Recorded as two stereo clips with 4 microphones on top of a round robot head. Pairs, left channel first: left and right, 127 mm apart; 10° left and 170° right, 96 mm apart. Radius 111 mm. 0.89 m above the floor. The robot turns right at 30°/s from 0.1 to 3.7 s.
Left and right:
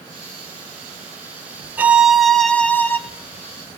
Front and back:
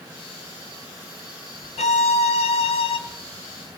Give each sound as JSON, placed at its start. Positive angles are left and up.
{"t": 1.8, "sound": "a violin", "azimuth_deg": -15, "distance_m": 0.9}